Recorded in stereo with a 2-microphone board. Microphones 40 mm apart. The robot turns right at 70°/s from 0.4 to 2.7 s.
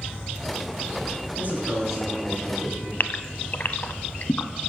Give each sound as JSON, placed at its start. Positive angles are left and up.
{"t": 1.4, "sound": "a man speaking", "azimuth_deg": -55, "distance_m": 5.0}
{"t": 3.0, "sound": "a gasp", "side_deg": 50, "distance_m": 0.6}